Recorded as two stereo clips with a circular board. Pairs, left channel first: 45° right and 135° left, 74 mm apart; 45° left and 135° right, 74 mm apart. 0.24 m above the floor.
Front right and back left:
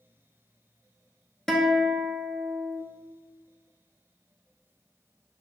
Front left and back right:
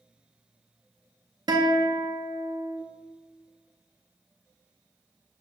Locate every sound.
1.5 s a guitar: 130° right, 0.6 m